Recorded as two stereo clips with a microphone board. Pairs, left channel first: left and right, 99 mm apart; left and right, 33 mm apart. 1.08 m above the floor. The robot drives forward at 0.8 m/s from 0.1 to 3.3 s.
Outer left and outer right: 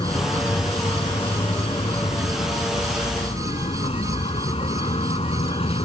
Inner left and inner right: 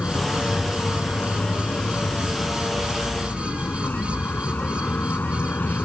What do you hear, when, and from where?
0.0 s a vehicle: 55° left (ahead or behind); by 5.8 s 75° left (ahead or behind)